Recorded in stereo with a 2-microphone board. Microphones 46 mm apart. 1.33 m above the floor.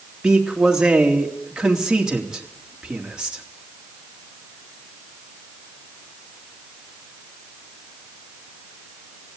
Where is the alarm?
No alarm in this recording.